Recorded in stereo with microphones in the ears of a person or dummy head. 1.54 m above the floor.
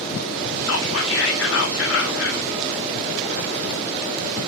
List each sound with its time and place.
0.7 s whispering: 80° left, 1.1 m